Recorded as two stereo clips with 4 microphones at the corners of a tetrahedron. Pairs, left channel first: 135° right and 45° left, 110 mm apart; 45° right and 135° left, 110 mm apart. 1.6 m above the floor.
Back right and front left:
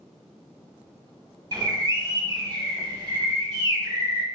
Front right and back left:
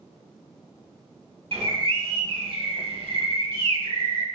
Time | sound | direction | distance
1.5 | a bird | 95° left | 1.4 m